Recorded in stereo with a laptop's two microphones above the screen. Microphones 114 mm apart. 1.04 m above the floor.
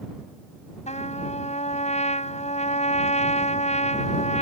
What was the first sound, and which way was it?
A trumpet, 80° left.